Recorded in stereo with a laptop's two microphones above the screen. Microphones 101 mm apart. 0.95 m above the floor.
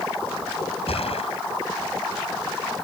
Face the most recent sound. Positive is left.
turn(degrees=80)